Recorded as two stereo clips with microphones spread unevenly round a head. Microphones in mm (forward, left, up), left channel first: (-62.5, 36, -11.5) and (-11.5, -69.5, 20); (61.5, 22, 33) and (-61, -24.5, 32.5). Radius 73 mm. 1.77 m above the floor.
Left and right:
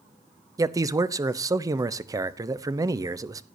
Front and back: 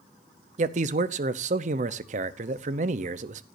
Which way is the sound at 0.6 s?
120° right.